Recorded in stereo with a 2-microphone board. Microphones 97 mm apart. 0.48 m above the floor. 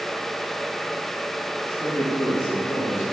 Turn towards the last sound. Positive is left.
turn(degrees=-10)  # may be behind; listen again after turning